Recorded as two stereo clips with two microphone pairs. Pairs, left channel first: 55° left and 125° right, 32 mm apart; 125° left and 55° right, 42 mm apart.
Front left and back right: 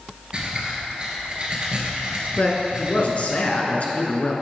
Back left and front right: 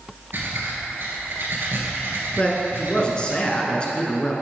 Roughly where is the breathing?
Right.